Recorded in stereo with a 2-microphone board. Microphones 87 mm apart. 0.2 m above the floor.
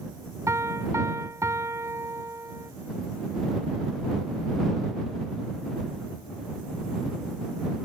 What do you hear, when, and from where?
0.5 s a piano: 35° right (ahead or behind)